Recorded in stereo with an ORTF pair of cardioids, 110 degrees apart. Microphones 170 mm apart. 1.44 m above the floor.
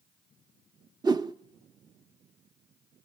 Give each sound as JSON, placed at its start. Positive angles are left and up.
{"t": 1.0, "sound": "a whoosh", "azimuth_deg": -25, "distance_m": 0.8}